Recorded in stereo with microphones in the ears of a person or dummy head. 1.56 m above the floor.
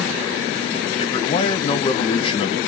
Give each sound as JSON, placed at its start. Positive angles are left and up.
{"t": 1.0, "sound": "a man speaking", "side_deg": 35, "distance_m": 1.4}